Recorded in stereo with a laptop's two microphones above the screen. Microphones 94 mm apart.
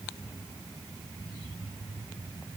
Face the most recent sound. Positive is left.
No sound to turn to.